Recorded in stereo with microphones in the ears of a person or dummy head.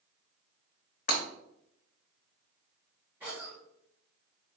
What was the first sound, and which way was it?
Breaking glass, 45° left (ahead or behind).